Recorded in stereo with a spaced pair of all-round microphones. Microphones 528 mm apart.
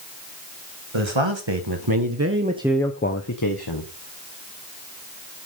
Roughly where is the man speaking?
Right.